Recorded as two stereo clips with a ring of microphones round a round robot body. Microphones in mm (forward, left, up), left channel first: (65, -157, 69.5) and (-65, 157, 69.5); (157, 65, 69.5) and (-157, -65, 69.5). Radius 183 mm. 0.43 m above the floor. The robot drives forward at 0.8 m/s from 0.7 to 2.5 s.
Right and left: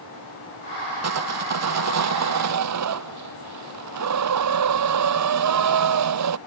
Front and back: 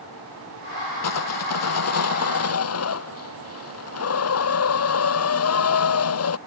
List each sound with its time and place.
1.0 s sawing: 65° left; by 6.4 s 70° left